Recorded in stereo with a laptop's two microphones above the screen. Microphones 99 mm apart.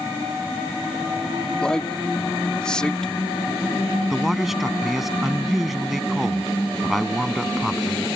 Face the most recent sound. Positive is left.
turn(degrees=0)  # may be behind; listen again after turning